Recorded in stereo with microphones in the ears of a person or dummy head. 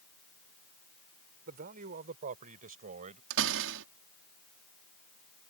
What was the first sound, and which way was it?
A man speaking, 45° right (ahead or behind).